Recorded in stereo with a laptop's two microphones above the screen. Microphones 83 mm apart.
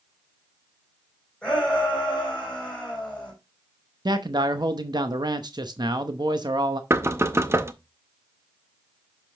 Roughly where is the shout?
Centre.